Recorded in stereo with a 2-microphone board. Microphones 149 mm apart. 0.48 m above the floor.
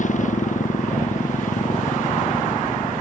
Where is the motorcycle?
55° left (ahead or behind).